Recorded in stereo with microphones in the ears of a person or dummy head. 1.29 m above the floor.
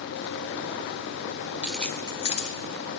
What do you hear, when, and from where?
1.6 s keys jangling: 10° right (ahead or behind), 0.7 m; by 3.0 s 50° left (ahead or behind), 1.2 m